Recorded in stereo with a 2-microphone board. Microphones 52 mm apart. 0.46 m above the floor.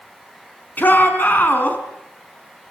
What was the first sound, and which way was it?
A shout, 35° left (ahead or behind).